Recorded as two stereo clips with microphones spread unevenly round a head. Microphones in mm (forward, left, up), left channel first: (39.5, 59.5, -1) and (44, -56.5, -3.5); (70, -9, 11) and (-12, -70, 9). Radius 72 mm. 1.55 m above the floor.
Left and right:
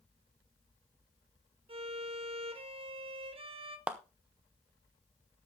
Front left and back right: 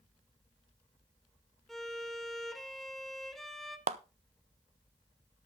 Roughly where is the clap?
Behind.